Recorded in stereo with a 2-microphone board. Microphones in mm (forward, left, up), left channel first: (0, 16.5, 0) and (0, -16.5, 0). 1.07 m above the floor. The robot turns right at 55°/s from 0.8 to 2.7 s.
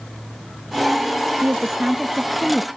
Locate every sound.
1.4 s a woman speaking: 55° right, 0.7 m; by 2.7 s 15° left, 0.7 m